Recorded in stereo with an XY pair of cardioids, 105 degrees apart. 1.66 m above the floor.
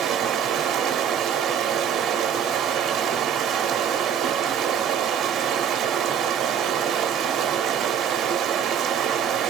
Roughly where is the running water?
Right.